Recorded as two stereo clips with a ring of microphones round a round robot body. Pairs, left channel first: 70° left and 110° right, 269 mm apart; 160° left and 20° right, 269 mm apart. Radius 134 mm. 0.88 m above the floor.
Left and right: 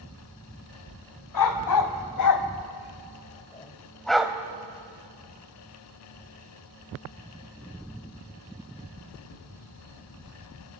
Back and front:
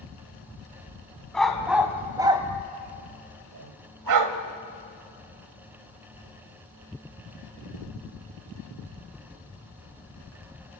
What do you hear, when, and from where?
1.3 s a dog barking: 70° left, 1.8 m; by 4.4 s 30° right, 1.3 m